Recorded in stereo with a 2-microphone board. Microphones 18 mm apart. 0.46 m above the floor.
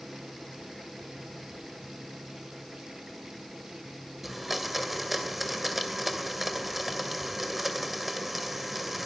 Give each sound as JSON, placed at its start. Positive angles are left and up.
{"t": 4.2, "sound": "a blender", "side_deg": -5, "distance_m": 2.5}